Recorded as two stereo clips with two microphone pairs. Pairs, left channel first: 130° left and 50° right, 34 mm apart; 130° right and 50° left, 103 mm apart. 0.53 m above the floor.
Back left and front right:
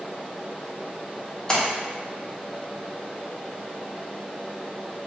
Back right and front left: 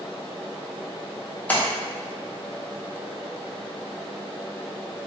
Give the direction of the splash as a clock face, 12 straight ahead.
6 o'clock.